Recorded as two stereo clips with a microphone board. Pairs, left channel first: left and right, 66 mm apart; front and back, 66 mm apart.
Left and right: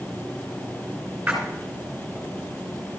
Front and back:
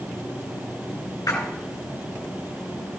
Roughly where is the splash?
Ahead.